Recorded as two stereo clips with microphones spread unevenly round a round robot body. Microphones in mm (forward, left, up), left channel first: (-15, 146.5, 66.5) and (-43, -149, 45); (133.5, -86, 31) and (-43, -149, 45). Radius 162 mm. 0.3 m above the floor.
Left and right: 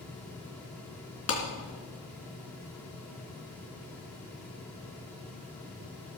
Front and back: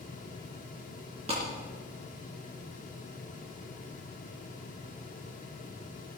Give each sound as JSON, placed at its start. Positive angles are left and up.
{"t": 1.3, "sound": "a clap", "azimuth_deg": 130, "distance_m": 3.5}